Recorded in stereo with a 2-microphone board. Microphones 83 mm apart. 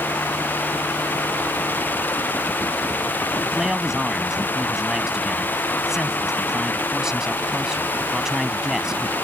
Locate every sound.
3.4 s a man speaking: 5° right (ahead or behind)